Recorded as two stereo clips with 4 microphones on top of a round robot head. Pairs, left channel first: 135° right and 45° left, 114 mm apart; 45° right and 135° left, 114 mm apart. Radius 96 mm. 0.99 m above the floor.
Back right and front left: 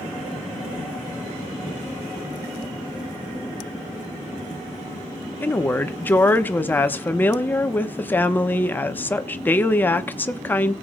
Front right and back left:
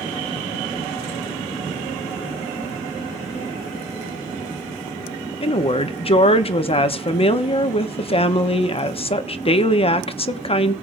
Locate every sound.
5.4 s a woman speaking: 60° right, 1.1 m